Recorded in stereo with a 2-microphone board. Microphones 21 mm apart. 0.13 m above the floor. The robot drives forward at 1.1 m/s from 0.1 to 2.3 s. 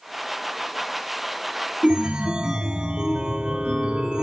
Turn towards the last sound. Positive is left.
turn(degrees=-50)  # may be behind; listen again after turning